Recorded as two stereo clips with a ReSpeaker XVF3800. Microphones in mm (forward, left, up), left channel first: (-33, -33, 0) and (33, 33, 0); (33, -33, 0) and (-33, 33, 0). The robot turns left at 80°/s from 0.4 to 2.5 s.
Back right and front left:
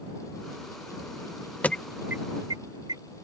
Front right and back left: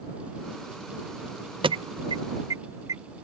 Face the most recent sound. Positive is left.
turn(degrees=85)